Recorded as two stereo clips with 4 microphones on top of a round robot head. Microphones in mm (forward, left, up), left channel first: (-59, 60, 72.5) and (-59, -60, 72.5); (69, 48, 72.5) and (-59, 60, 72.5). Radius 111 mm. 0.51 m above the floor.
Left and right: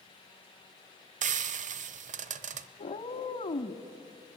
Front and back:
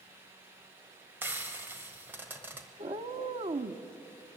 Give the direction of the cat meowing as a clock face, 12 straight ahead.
8 o'clock.